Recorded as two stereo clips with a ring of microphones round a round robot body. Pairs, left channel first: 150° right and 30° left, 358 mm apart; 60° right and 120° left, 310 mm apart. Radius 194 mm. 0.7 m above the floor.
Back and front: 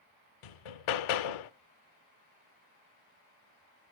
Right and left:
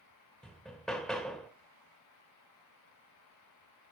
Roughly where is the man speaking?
I don't hear a man speaking.